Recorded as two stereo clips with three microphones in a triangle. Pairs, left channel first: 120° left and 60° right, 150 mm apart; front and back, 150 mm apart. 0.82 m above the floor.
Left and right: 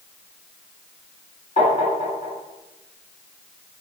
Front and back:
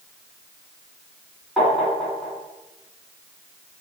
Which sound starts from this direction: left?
Tapping, at 1.6 s.